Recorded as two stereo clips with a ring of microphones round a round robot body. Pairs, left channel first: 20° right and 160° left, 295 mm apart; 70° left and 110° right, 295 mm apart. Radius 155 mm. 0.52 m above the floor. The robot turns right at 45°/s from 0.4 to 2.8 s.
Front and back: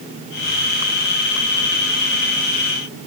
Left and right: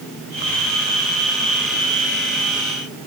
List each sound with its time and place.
Only background noise.